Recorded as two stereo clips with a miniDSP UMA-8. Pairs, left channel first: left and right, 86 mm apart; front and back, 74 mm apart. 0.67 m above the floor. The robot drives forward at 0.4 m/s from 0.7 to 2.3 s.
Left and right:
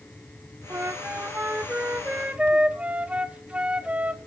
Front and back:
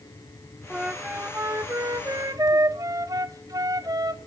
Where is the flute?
105° right, 0.5 m; by 4.2 s 160° right, 0.9 m.